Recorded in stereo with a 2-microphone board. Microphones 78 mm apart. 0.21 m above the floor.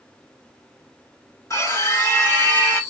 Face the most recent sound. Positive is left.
turn(degrees=25)  # may be behind; listen again after turning